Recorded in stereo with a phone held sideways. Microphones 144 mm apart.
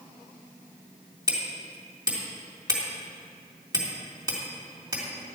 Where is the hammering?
25° right (ahead or behind), 3 m.